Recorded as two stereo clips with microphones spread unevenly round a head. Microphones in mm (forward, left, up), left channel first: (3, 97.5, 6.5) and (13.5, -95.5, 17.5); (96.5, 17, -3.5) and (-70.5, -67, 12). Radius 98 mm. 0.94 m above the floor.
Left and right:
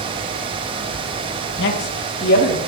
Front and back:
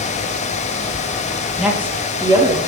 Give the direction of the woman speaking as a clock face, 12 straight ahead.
8 o'clock.